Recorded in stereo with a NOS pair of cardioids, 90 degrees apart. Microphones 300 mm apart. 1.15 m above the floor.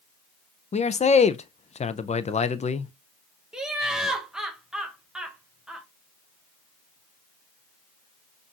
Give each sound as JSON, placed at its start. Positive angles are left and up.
{"t": 0.7, "sound": "a man speaking", "azimuth_deg": 25, "distance_m": 0.5}
{"t": 3.5, "sound": "laughter", "azimuth_deg": 0, "distance_m": 0.7}